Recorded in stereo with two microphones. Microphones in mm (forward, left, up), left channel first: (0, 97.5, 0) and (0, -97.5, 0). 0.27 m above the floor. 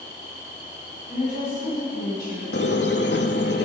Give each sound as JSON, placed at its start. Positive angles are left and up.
{"t": 1.1, "sound": "a woman speaking", "side_deg": 50, "distance_m": 2.5}
{"t": 2.5, "sound": "a squeak", "side_deg": 65, "distance_m": 0.6}